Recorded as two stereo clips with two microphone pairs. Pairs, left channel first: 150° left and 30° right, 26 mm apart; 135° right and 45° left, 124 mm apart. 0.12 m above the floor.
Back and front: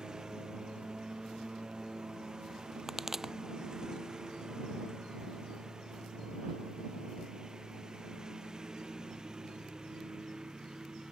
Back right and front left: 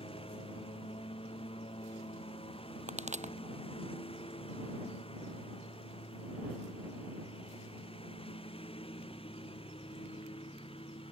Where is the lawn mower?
90° right.